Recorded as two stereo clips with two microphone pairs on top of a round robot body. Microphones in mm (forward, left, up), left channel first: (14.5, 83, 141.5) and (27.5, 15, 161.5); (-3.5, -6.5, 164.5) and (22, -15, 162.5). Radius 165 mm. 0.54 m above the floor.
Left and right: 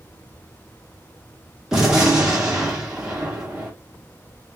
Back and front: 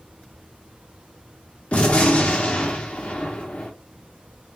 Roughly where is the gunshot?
Behind.